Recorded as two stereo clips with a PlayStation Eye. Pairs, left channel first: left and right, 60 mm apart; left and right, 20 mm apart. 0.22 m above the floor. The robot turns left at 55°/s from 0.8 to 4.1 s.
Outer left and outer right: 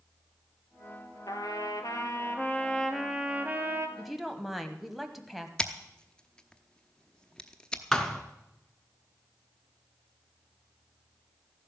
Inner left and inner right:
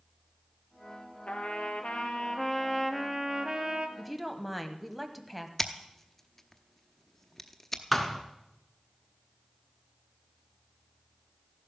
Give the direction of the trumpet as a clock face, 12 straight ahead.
9 o'clock.